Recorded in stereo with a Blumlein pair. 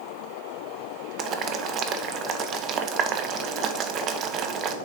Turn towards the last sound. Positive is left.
turn(degrees=-35)